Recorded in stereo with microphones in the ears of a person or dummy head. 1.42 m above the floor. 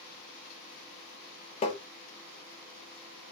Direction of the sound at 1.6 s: 45° left (ahead or behind).